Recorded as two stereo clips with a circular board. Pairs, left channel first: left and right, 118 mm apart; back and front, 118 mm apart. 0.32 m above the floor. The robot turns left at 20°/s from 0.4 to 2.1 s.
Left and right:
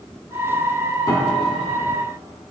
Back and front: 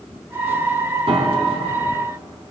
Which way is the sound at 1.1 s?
35° left.